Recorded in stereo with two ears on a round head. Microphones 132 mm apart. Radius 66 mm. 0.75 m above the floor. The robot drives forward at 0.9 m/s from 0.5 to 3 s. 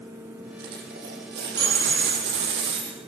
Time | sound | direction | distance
0.6 | a dropped coin | 70° right (ahead or behind) | 7.5 m